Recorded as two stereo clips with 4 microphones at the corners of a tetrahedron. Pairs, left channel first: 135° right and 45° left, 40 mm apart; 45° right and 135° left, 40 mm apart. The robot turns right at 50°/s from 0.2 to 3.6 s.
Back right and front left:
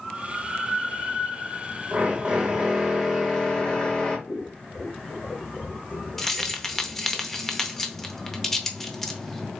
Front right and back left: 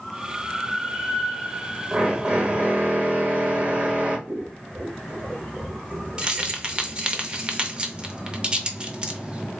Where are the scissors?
Straight behind, 0.8 m.